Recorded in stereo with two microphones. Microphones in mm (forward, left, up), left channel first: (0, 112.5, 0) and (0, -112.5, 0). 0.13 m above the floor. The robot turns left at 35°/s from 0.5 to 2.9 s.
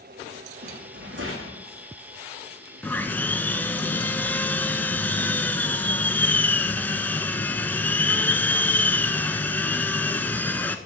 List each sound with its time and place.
0.6 s a rattle: 40° right, 2.5 m; by 1.6 s 75° right, 2.5 m
2.8 s sawing: 5° left (ahead or behind), 0.6 m; by 10.8 s 10° left (ahead or behind), 0.6 m